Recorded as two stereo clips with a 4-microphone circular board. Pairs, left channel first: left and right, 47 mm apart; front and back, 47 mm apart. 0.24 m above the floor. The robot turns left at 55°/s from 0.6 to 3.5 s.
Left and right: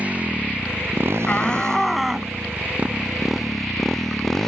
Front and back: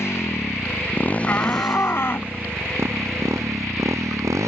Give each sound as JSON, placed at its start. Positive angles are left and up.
{"t": 0.0, "sound": "a motorcycle", "azimuth_deg": -30}
{"t": 1.3, "sound": "a shout", "azimuth_deg": 35}